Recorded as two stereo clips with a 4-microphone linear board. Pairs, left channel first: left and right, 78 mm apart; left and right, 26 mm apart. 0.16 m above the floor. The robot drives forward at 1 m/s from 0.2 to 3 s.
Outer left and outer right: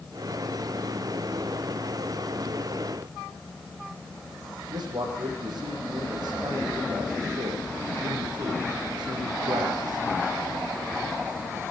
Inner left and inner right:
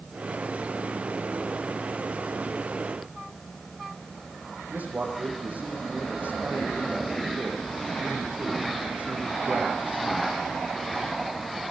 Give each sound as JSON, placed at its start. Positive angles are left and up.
{"t": 4.7, "sound": "a man speaking", "side_deg": -60, "distance_m": 8.5}